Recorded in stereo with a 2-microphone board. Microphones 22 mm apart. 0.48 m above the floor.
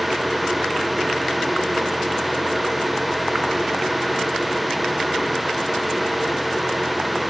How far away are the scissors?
I don't hear scissors.